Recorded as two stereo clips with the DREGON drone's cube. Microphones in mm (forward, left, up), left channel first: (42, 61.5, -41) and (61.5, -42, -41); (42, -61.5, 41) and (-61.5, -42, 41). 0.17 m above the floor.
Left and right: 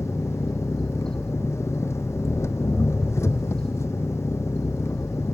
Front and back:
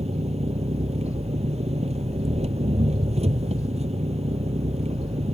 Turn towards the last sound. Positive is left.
turn(degrees=165)